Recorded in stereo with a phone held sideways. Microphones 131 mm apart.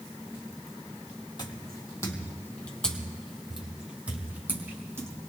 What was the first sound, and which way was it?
Footsteps, 35° left (ahead or behind).